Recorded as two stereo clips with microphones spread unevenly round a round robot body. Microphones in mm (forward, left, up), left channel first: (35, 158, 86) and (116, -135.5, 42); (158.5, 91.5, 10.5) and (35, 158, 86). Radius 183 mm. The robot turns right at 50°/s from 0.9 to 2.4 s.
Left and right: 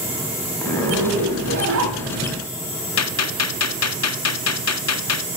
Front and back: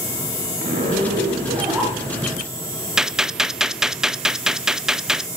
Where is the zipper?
175° right, 1.3 m; by 2.4 s 100° right, 1.3 m.